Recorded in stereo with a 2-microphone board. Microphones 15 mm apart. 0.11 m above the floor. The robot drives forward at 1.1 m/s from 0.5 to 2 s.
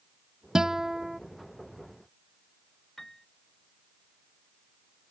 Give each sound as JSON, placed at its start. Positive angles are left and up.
{"t": 0.6, "sound": "a guitar", "side_deg": -40}
{"t": 3.0, "sound": "a piano", "side_deg": 25}